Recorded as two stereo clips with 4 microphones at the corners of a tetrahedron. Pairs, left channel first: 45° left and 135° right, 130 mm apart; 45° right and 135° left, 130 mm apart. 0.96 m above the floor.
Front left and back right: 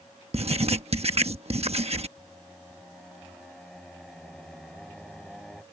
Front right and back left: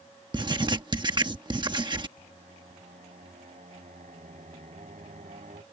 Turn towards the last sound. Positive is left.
turn(degrees=130)